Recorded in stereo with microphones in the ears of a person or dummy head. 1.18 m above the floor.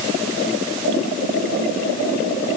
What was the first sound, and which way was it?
Only background noise.